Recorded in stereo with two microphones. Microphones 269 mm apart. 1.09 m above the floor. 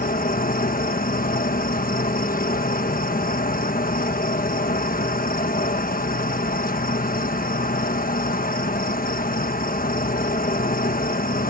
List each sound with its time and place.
0.0 s an insect: 30° left (ahead or behind)